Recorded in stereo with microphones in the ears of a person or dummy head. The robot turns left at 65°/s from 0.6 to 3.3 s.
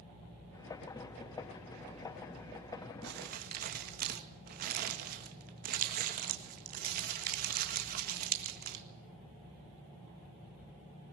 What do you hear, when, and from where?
3.0 s crumpling: 70° right (ahead or behind), 1.8 m; by 8.8 s 50° right (ahead or behind), 1.8 m